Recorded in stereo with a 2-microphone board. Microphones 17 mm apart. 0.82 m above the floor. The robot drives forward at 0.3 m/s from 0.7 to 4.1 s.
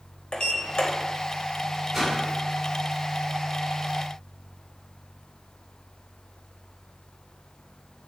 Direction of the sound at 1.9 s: 15° right (ahead or behind).